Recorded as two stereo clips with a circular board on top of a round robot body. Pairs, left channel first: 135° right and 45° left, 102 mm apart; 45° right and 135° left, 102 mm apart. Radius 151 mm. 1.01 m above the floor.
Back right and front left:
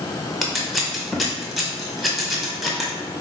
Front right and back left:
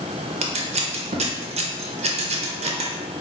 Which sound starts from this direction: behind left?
Scissors, at 0.4 s.